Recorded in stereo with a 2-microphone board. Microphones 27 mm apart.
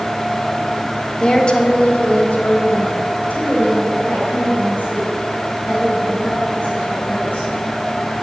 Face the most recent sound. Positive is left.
turn(degrees=60)  # may be behind; listen again after turning